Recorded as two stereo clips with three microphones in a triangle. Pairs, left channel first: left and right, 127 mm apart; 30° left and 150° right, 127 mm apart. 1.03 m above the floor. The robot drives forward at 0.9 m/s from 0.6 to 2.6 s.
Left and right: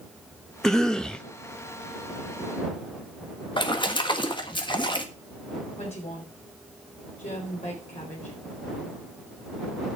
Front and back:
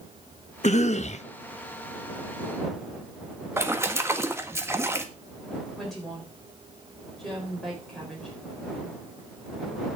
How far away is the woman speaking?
About 4 m.